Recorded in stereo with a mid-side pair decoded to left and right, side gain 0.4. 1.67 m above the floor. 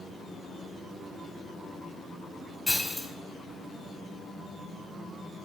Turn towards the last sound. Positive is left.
turn(degrees=10)